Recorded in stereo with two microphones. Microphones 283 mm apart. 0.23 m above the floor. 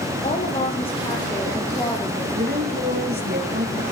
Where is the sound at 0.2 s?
25° left (ahead or behind), 5.5 m; by 2.2 s 10° left (ahead or behind), 6 m.